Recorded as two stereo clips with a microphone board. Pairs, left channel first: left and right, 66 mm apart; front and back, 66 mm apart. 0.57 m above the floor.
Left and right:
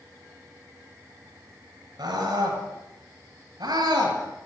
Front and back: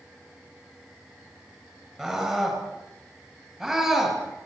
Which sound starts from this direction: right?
A scream, at 2.0 s.